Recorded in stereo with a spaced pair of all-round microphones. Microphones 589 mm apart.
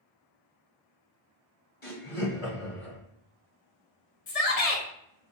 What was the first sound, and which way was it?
Laughter, 60° left (ahead or behind).